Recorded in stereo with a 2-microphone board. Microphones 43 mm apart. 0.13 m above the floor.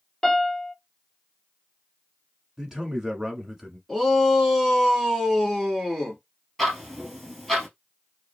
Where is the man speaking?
15° right (ahead or behind), 1.1 m.